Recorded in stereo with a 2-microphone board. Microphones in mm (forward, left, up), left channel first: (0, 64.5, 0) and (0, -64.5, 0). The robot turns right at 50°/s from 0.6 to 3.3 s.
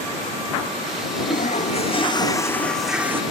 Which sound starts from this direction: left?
A toilet flushing, at 1.3 s.